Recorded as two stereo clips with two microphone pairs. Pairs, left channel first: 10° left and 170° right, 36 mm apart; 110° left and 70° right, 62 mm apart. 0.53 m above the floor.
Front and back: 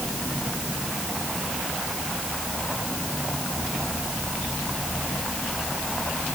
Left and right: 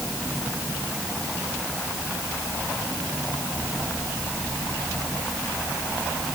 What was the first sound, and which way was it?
Only background noise.